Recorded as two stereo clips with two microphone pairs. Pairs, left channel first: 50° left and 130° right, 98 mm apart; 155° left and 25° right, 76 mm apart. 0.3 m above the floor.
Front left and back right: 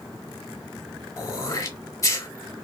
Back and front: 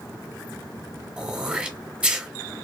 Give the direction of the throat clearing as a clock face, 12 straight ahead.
11 o'clock.